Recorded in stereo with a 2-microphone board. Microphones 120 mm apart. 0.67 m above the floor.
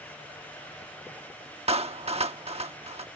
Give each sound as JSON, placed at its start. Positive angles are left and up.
{"t": 1.7, "sound": "a clap", "side_deg": -55}